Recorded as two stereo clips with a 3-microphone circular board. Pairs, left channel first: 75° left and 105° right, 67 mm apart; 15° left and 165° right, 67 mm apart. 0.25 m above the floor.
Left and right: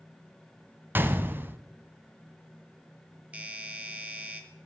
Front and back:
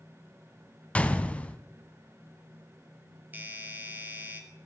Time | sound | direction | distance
0.9 | a gunshot | 50° right | 0.8 m
3.3 | a doorbell | 145° right | 1.6 m